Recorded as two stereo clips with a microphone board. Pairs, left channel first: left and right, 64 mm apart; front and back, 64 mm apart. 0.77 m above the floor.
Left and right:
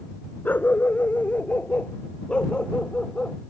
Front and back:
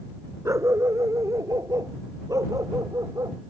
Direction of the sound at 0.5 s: 150° left.